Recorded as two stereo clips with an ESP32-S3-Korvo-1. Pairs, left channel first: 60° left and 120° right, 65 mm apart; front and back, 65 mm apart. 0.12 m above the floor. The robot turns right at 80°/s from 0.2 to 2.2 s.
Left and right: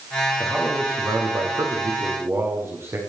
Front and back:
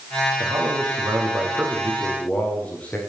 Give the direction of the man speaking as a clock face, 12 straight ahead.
7 o'clock.